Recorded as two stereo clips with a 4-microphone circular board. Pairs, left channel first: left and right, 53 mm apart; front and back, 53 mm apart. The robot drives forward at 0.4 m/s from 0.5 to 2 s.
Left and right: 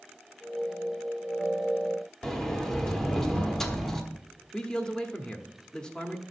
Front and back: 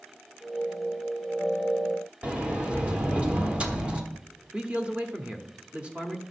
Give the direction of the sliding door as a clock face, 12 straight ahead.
7 o'clock.